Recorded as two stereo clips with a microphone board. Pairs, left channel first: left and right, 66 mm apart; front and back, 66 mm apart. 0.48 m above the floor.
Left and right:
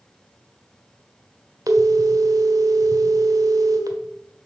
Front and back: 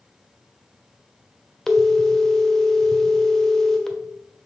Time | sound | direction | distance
1.7 | a phone ringing | 80° right | 1.3 m